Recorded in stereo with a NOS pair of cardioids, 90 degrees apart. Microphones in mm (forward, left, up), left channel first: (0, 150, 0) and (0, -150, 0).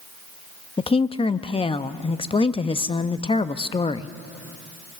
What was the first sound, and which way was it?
A woman speaking, 20° left.